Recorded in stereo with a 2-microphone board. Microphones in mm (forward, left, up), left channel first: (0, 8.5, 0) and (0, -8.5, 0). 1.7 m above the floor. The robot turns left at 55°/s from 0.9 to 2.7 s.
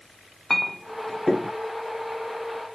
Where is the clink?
10° left (ahead or behind), 1.0 m; by 1.5 s 10° right (ahead or behind), 1.0 m.